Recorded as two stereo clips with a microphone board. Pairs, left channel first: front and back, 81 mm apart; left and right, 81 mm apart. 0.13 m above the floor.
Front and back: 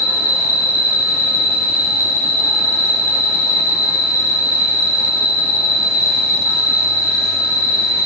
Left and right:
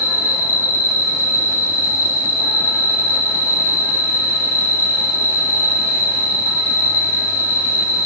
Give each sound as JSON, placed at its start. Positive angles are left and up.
{"t": 0.0, "sound": "an insect", "azimuth_deg": 20, "distance_m": 1.5}